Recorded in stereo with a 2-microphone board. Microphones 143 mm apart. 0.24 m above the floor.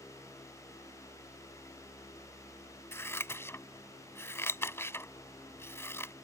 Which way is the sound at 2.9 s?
20° left (ahead or behind).